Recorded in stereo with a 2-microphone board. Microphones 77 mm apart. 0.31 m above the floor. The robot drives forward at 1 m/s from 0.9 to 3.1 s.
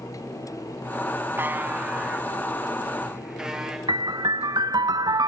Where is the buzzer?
35° right (ahead or behind), 0.8 m; by 3.8 s 10° right (ahead or behind), 2.5 m.